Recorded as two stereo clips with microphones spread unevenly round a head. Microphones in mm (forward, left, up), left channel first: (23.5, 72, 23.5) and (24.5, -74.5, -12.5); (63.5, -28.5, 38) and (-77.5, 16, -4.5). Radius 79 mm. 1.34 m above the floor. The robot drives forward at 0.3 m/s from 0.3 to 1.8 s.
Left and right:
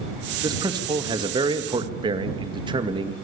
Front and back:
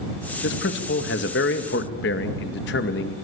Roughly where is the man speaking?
Ahead right.